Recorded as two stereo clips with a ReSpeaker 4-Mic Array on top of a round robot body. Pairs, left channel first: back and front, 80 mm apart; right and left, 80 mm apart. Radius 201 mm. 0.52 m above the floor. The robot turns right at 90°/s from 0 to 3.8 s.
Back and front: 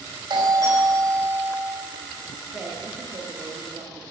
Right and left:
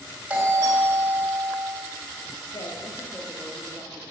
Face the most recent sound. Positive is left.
turn(degrees=35)